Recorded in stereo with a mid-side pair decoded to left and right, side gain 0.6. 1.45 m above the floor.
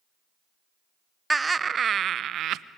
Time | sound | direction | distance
1.3 | laughter | 10° right | 0.7 m